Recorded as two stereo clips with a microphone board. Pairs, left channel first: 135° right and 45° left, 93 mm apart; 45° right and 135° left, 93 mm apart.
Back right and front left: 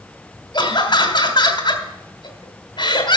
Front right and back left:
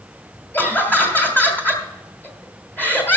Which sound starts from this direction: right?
Laughter, at 0.5 s.